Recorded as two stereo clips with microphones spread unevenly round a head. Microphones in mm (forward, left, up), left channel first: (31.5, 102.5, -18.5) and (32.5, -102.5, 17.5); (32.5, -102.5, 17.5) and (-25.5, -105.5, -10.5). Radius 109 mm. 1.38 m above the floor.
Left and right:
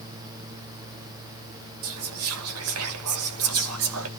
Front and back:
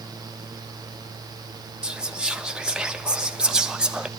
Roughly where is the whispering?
Right.